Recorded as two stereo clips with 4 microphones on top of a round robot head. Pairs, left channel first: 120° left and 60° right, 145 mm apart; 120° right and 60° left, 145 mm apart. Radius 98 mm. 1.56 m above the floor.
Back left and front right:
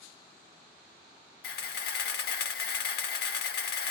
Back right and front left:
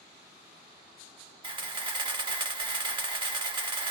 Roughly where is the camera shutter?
Behind left.